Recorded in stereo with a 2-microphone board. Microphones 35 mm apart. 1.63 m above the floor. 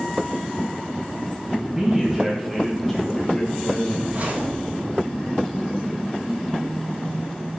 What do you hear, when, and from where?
1.5 s a man speaking: 15° right (ahead or behind), 2 m; by 4.0 s 25° left (ahead or behind), 2.0 m
4.1 s a zipper: 45° right (ahead or behind), 2.5 m